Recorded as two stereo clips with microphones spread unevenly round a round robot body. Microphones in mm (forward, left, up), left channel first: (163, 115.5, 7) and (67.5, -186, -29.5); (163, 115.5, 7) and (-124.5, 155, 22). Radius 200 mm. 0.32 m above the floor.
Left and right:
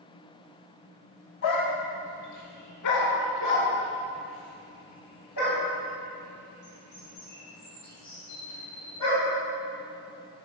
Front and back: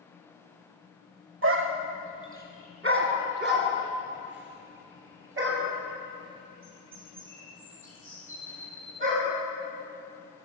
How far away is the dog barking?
About 0.7 m.